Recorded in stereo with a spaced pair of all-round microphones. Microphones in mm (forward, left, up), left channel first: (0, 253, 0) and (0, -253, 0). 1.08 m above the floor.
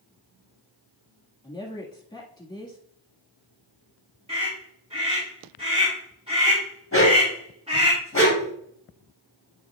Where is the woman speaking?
10° left (ahead or behind), 1.7 m.